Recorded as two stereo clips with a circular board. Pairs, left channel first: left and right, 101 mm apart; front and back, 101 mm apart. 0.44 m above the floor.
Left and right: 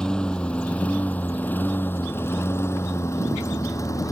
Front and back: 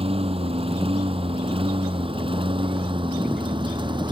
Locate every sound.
0.0 s a lawn mower: 170° left; by 4.1 s 145° left